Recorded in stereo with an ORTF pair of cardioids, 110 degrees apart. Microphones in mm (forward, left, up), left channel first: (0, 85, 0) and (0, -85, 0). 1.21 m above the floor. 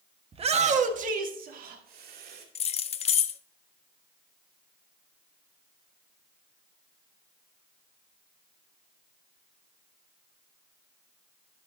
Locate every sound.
0.3 s a shout: 35° right, 1.3 m; by 2.5 s 70° right, 3 m
2.5 s keys jangling: 40° left, 0.7 m